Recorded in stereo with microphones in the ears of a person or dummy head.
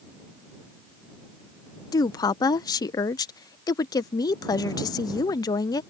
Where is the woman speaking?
20° left (ahead or behind).